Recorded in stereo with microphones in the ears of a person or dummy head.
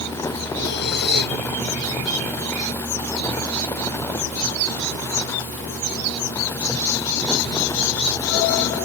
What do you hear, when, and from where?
0.6 s breathing: 60° left (ahead or behind)